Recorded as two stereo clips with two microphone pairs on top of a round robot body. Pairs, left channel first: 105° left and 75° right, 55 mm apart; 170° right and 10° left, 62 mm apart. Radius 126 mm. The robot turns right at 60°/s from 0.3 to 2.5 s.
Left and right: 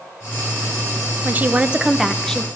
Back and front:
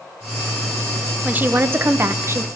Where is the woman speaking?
40° right, 0.7 m; by 2.5 s 30° left, 0.7 m.